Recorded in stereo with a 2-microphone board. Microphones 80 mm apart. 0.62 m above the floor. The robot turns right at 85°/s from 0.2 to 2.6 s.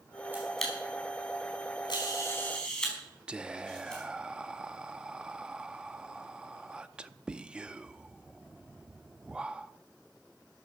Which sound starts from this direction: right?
A camera shutter, at 0.3 s.